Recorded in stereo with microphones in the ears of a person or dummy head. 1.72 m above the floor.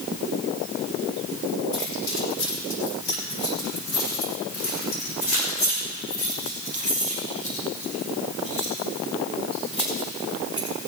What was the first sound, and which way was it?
Keys jangling, 75° left (ahead or behind).